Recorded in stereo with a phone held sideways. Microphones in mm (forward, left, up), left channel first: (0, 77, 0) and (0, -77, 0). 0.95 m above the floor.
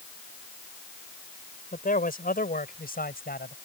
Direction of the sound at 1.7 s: 65° left (ahead or behind).